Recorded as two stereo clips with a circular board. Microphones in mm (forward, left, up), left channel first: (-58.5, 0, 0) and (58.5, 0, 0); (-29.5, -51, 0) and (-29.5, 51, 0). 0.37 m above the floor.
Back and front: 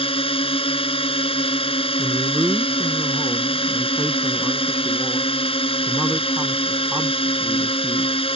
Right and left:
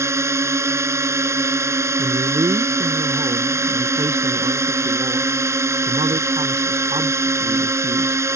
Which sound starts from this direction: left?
A man speaking, at 2.0 s.